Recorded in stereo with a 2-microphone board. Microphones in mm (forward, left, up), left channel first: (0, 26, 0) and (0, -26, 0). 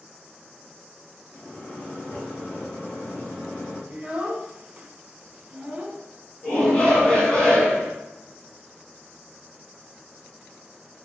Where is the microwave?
30° left (ahead or behind), 1.8 m.